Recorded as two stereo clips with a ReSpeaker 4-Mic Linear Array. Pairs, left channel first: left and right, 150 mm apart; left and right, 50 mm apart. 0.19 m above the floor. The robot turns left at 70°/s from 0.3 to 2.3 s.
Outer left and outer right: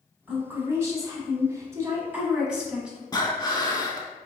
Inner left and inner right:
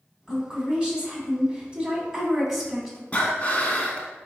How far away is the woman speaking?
About 1.1 m.